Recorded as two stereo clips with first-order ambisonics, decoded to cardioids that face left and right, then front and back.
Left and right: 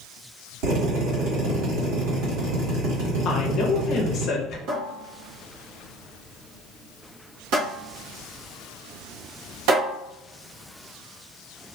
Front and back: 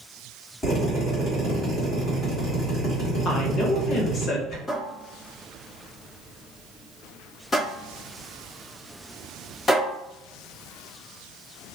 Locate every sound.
0.6 s a drill: 75° right, 1.7 m
3.2 s a woman speaking: 45° left, 0.7 m
4.7 s a cupboard door: 70° right, 1.0 m